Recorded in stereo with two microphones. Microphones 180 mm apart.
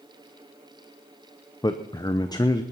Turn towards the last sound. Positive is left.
turn(degrees=20)  # may be behind; listen again after turning